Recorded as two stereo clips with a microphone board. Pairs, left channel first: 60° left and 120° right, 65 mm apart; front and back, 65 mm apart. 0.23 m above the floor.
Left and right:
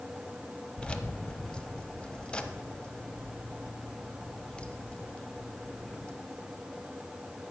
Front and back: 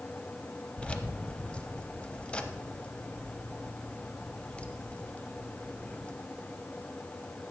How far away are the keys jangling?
About 0.7 m.